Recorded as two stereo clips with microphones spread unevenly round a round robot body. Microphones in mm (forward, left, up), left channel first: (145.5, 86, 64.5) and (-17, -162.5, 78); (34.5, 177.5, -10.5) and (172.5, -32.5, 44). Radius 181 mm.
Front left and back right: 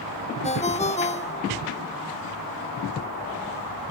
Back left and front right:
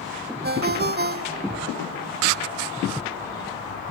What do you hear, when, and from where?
0.4 s a ringtone: 10° right